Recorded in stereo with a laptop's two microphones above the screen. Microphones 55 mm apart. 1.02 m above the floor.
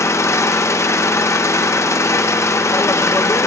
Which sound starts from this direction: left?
An engine running, at 0.0 s.